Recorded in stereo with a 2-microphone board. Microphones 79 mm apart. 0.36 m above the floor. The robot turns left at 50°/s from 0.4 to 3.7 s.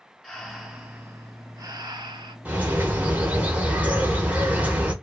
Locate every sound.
0.2 s breathing: 5° left, 0.8 m; by 2.4 s 90° right, 0.8 m
2.5 s a bird: 20° right (ahead or behind), 0.8 m